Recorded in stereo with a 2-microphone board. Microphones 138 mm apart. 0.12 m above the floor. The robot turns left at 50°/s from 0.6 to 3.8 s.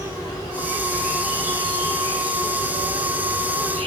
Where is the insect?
25° left, 4 m; by 3.9 s 135° right, 4 m.